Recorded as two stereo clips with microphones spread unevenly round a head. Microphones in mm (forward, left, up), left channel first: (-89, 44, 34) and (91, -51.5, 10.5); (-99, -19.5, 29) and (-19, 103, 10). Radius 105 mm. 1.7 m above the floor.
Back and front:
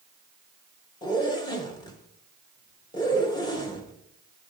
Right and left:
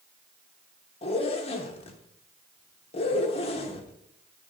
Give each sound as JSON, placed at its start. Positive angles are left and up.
{"t": 1.0, "sound": "a zipper", "azimuth_deg": -150, "distance_m": 1.0}